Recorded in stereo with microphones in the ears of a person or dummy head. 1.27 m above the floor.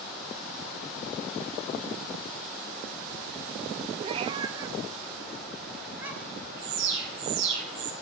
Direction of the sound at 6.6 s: 70° right (ahead or behind).